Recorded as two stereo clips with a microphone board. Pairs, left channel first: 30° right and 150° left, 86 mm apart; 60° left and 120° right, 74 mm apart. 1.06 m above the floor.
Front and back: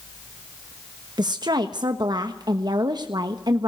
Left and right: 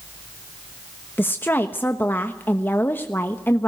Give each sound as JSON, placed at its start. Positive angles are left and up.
{"t": 1.2, "sound": "a woman speaking", "azimuth_deg": 120, "distance_m": 1.1}